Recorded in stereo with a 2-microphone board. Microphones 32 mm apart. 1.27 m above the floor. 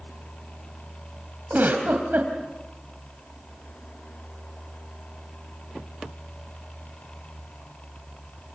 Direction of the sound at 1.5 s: 80° right.